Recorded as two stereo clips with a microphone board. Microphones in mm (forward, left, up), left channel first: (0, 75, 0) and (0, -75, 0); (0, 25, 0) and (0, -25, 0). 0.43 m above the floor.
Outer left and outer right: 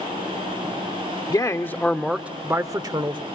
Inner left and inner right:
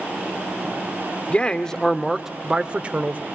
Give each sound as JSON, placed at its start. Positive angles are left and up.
{"t": 1.3, "sound": "a man speaking", "side_deg": 25, "distance_m": 0.8}